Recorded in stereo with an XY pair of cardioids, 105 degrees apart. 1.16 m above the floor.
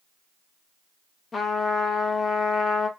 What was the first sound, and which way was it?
A trumpet, 35° left.